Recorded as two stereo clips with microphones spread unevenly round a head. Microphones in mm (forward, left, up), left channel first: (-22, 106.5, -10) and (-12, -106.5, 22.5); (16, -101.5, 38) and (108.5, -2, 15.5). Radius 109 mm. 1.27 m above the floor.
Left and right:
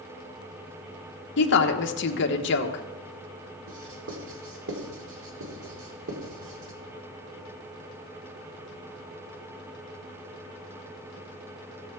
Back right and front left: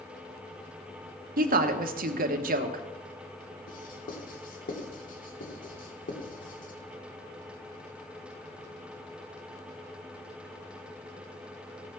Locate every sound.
1.4 s a woman speaking: 55° left, 1.2 m
3.7 s writing: 115° right, 2.5 m